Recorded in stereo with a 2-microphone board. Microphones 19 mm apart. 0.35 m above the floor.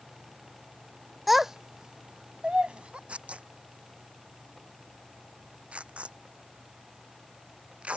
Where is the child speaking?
Centre (ahead or behind); by 3.0 s 70° right (ahead or behind).